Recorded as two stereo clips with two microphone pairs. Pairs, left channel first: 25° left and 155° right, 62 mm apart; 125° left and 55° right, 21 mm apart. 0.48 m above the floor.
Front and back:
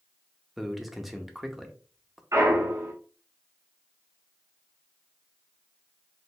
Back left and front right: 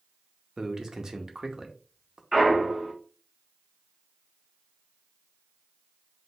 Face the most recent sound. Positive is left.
turn(degrees=-125)